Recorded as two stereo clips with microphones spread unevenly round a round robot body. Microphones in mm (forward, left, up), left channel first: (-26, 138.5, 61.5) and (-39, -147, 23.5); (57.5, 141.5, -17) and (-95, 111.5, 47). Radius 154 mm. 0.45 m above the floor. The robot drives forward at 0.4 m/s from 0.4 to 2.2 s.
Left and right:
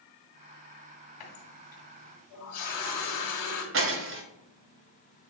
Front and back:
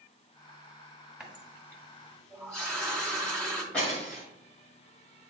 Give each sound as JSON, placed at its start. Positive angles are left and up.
{"t": 1.2, "sound": "a running tap", "azimuth_deg": 100, "distance_m": 2.0}
{"t": 3.7, "sound": "breaking glass", "azimuth_deg": -60, "distance_m": 1.0}